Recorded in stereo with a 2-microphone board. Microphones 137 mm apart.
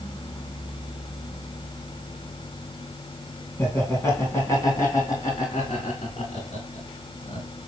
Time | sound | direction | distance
3.6 | laughter | 15° left (ahead or behind) | 3 m